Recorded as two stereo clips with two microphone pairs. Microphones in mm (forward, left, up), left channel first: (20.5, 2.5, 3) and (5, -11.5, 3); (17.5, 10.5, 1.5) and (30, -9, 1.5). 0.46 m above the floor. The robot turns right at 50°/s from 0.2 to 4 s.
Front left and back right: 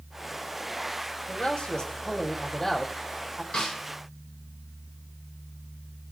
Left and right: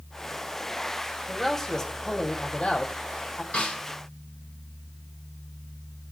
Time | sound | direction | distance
1.3 | a man speaking | 40° left | 2 m
3.5 | a snare drum | 90° left | 9.5 m